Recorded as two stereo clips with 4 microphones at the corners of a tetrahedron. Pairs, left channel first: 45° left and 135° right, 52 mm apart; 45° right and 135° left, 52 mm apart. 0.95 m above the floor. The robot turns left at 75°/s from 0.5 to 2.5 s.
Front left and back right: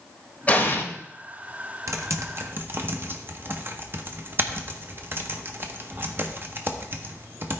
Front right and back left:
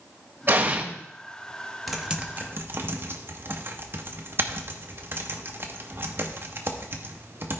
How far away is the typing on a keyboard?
About 0.9 m.